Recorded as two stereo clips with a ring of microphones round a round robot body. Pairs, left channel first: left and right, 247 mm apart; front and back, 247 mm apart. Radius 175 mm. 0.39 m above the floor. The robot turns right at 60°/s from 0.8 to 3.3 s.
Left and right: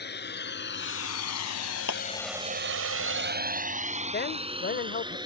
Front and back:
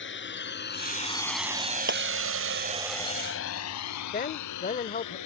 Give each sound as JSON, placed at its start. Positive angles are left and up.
{"t": 0.0, "sound": "a drone", "azimuth_deg": 40}
{"t": 1.9, "sound": "a clap", "azimuth_deg": 135}
{"t": 4.1, "sound": "a man speaking", "azimuth_deg": 50}